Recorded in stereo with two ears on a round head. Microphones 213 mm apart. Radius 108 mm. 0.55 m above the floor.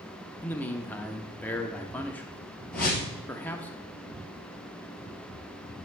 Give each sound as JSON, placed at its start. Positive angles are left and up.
{"t": 0.4, "sound": "a man speaking", "side_deg": 5, "distance_m": 0.6}
{"t": 2.7, "sound": "a whoosh", "side_deg": 5, "distance_m": 2.5}